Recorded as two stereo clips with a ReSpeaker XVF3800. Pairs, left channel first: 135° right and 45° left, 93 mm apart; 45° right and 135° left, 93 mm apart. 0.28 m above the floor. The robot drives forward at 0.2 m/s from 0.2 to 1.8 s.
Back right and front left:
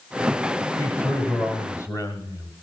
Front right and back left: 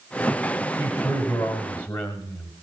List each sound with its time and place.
0.8 s a man speaking: 95° right, 1.5 m; by 2.5 s 110° right, 1.6 m